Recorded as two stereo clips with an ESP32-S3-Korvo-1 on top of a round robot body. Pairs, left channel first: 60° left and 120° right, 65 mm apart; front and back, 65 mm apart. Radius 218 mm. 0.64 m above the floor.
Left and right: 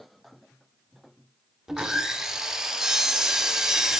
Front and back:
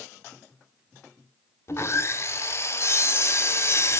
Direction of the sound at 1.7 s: 40° right.